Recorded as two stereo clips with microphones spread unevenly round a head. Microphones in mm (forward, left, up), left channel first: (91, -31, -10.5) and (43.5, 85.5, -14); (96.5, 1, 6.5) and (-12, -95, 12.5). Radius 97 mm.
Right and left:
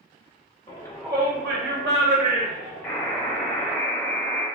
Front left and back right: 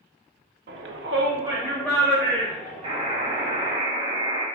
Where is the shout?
130° right, 0.7 m; by 3.7 s 100° left, 2.5 m.